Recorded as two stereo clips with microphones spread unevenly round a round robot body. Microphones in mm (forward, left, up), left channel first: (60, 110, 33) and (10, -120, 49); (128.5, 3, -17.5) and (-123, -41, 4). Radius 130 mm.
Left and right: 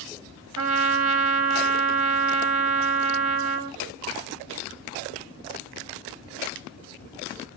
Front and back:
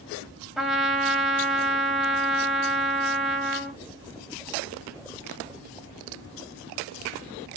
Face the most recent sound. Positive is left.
turn(degrees=-80)